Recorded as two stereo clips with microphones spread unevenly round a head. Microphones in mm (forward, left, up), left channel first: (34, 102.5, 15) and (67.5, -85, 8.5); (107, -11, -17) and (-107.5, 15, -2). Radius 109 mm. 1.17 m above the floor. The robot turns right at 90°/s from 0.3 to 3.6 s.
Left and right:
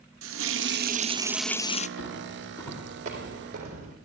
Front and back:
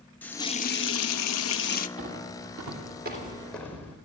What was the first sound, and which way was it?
A running tap, 90° right.